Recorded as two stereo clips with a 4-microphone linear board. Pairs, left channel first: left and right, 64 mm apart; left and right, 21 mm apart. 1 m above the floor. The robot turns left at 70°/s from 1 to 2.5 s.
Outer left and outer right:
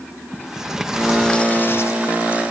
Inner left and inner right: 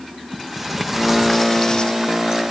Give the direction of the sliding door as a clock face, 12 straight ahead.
6 o'clock.